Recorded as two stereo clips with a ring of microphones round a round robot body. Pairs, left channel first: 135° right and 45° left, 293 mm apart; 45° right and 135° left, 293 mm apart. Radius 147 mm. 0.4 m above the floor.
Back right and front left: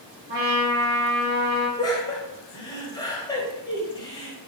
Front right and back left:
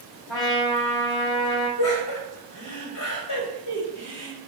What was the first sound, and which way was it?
A trumpet, 15° right.